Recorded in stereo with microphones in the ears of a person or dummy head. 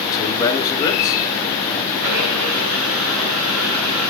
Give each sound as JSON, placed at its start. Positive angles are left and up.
{"t": 0.1, "sound": "a man speaking", "side_deg": 25, "distance_m": 2.0}
{"t": 2.0, "sound": "a blender", "side_deg": -80, "distance_m": 3.5}